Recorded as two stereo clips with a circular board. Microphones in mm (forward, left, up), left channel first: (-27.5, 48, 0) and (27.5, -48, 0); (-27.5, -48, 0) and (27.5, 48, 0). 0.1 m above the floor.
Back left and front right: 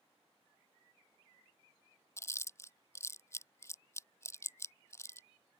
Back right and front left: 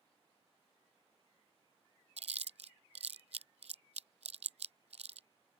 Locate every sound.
2.2 s chewing: 55° left